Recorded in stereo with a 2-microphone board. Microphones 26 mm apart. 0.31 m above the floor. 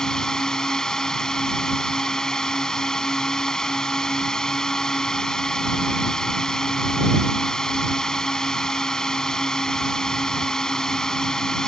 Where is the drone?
25° left (ahead or behind).